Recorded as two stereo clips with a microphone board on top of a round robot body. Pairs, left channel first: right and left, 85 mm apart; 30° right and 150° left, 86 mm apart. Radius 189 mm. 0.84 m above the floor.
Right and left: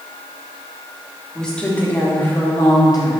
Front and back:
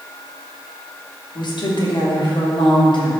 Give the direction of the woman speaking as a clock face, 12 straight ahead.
12 o'clock.